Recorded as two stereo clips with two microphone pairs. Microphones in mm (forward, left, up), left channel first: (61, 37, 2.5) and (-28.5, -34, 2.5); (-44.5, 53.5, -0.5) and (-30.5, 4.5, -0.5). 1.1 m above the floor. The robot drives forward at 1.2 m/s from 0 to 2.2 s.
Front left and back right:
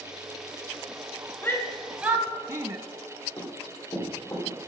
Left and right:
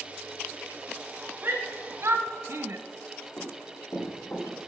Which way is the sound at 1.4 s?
25° right.